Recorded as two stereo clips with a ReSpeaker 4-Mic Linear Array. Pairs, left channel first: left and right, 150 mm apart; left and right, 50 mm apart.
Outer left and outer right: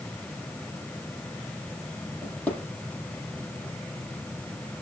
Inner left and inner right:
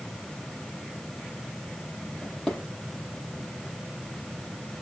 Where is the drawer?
5° left (ahead or behind), 8 m.